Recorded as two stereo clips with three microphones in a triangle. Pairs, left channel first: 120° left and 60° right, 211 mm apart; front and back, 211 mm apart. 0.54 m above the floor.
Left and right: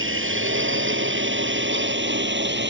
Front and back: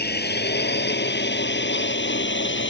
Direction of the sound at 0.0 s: 40° right.